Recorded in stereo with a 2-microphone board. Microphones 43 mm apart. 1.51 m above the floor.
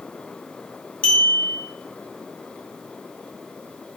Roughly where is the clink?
Left.